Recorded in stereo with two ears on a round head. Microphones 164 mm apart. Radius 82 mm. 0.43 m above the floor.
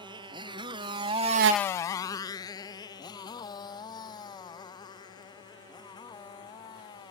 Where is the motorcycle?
25° right (ahead or behind); by 7.1 s 25° left (ahead or behind).